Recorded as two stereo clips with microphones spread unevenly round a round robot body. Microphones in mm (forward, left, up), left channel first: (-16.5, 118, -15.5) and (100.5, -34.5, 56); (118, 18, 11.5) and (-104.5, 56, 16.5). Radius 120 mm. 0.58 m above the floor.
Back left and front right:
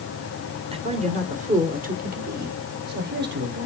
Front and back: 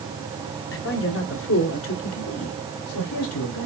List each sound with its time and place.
0.7 s a man speaking: 15° left, 2 m; by 3.7 s 15° right, 3 m